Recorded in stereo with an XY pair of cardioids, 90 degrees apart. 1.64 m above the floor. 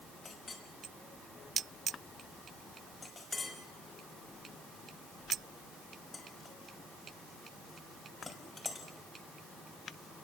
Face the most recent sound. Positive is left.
turn(degrees=40)